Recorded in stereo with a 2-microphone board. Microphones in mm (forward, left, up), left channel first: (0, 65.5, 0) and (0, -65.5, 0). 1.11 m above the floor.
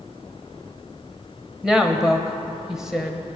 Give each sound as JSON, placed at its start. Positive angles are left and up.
{"t": 1.6, "sound": "a woman speaking", "side_deg": -5, "distance_m": 0.8}